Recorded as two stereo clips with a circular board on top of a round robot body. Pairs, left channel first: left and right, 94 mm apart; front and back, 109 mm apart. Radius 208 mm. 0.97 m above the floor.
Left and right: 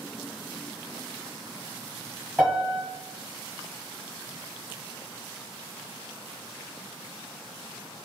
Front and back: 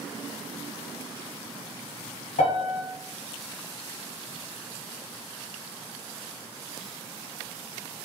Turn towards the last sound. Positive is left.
turn(degrees=5)